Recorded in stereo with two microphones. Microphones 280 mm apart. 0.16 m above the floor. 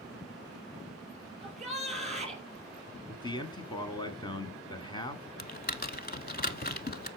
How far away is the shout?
About 3.5 m.